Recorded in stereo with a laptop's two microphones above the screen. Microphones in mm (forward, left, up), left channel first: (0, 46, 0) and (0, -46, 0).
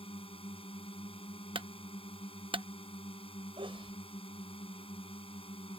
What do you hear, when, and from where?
0.0 s a drone: 80° left
1.6 s a clunk: 70° right (ahead or behind)
3.6 s a sneeze: 70° right (ahead or behind)